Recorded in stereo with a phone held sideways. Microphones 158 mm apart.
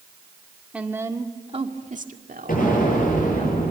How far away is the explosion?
About 9.5 m.